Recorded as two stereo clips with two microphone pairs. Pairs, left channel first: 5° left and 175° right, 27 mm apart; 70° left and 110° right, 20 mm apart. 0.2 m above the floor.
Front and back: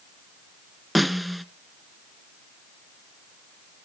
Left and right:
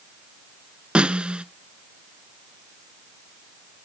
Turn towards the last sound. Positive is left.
turn(degrees=-85)